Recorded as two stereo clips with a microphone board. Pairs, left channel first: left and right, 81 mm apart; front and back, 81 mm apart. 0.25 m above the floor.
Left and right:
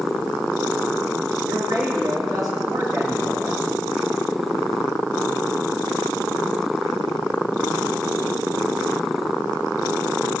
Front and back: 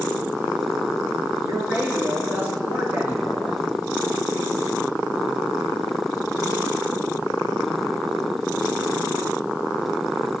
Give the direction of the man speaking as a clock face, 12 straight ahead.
4 o'clock.